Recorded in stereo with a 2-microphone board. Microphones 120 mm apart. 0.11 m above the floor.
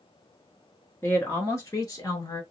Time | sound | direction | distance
1.0 | a woman speaking | 20° left (ahead or behind) | 1.3 m